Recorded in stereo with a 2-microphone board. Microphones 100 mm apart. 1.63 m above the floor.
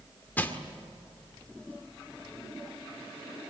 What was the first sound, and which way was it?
Crushing, 15° left (ahead or behind).